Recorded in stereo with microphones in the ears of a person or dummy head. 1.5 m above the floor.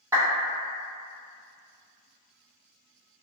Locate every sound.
0.1 s a clap: 20° right (ahead or behind), 1.4 m